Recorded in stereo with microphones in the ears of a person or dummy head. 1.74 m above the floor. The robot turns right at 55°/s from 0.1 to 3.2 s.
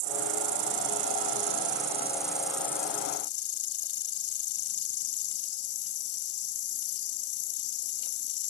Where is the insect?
120° right; by 8.5 s 50° left.